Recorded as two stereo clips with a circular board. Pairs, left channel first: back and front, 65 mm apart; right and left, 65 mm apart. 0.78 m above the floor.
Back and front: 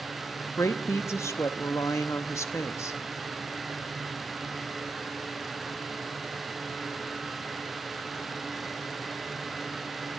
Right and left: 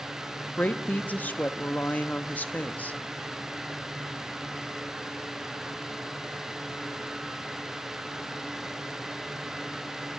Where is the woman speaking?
150° right, 0.7 m.